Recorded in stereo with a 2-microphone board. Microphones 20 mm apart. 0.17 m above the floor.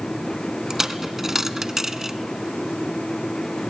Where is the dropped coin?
15° right (ahead or behind), 0.8 m.